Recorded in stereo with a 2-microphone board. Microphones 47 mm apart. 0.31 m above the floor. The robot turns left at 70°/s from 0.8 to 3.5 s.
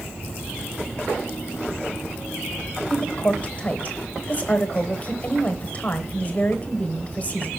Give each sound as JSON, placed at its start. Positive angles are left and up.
{"t": 2.9, "sound": "a woman speaking", "azimuth_deg": 150, "distance_m": 1.0}